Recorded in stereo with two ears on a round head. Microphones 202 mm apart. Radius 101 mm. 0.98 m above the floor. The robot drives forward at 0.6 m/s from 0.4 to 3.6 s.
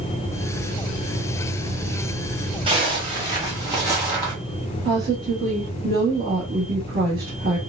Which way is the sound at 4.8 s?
40° right (ahead or behind).